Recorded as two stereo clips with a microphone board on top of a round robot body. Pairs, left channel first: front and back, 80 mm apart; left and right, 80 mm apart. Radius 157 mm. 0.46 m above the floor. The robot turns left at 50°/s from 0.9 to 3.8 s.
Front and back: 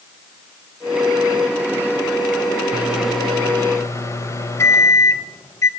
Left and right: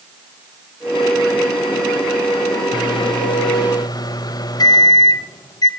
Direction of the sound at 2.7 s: 110° left.